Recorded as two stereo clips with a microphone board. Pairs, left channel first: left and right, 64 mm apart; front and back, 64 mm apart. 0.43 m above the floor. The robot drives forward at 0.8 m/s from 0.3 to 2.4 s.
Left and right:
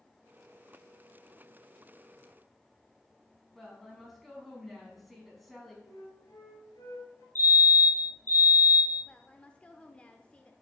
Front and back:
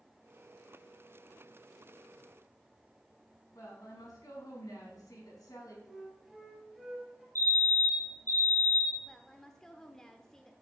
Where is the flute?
85° left, 3 m.